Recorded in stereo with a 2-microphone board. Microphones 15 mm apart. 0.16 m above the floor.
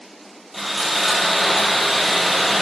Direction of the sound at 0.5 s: 10° right (ahead or behind).